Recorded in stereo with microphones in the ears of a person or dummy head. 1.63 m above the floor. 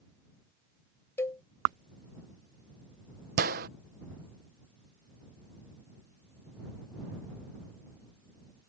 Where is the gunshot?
55° right (ahead or behind).